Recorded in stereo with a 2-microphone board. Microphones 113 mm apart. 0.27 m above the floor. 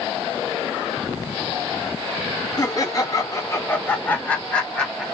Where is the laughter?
35° left (ahead or behind), 1.8 m; by 5.0 s 5° left (ahead or behind), 1.6 m.